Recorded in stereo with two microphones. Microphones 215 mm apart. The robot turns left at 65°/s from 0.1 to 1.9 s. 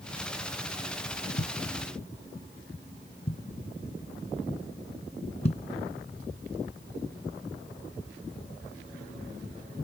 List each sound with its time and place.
1.4 s a thud: 60° left (ahead or behind); by 5.6 s 30° left (ahead or behind)